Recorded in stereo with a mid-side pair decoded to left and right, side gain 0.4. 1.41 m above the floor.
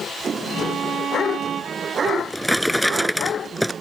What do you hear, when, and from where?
0.5 s a violin: 65° right
2.1 s a drawer: 5° right